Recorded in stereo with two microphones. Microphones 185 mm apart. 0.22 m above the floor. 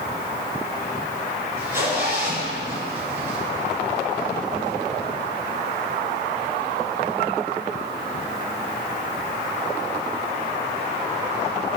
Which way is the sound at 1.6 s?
15° right (ahead or behind).